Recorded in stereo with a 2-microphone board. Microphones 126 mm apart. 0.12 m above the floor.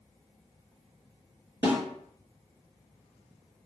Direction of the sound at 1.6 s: 20° right (ahead or behind).